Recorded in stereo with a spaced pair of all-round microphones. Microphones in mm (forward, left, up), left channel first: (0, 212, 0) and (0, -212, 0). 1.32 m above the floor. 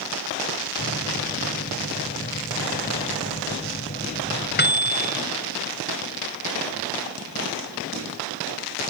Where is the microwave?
25° left (ahead or behind).